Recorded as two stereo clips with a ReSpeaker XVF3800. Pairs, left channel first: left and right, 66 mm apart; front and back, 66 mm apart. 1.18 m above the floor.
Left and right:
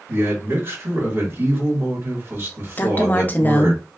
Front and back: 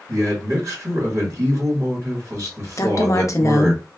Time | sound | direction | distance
0.1 | a man speaking | 135° right | 1.6 m
2.8 | a woman speaking | 30° left | 0.5 m